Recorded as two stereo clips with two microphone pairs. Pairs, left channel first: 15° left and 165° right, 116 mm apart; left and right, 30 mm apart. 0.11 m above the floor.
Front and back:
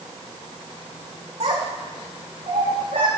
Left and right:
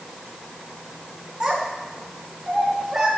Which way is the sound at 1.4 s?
140° right.